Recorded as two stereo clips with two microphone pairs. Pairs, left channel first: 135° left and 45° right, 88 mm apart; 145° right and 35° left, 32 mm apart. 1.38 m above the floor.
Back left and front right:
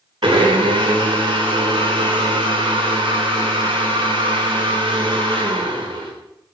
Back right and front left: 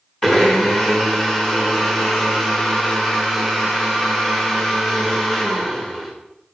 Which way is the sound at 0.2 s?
60° right.